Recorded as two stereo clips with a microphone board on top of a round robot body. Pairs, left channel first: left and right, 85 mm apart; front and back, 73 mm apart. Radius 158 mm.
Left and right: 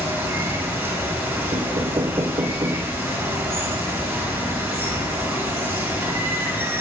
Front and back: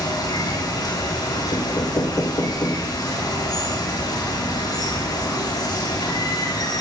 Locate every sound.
0.0 s running water: 20° right, 8.5 m
1.5 s knocking: 45° right, 1.2 m